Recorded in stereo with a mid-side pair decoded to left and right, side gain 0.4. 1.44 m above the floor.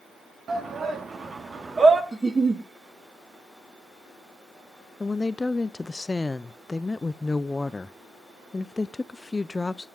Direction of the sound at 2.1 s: 20° right.